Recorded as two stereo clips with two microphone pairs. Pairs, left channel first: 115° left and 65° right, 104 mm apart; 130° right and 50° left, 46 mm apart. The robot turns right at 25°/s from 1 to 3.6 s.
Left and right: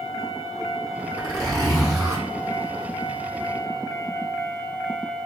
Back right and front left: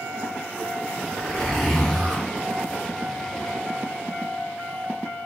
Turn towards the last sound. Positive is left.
turn(degrees=5)